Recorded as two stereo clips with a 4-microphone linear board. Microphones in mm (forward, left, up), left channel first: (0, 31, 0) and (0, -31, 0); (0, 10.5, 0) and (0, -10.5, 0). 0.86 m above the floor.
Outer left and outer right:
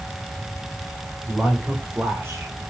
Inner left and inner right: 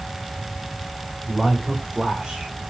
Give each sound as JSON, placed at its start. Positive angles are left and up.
{"t": 1.3, "sound": "a man speaking", "side_deg": -10, "distance_m": 3.0}